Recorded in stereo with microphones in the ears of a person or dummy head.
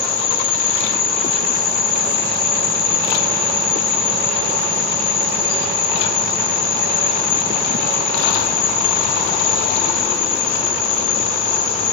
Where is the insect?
80° left, 1.6 m.